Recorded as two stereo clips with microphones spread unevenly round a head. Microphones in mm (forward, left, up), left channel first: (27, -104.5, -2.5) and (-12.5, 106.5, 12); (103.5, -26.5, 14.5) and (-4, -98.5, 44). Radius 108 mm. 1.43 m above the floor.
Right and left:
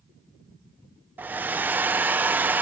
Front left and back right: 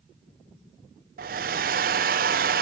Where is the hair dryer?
Straight behind.